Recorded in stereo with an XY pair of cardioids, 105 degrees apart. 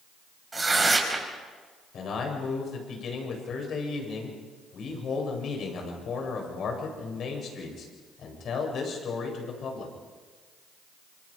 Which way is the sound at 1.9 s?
60° left.